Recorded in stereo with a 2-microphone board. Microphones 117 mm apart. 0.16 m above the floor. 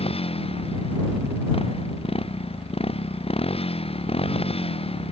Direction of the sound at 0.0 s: 55° left (ahead or behind).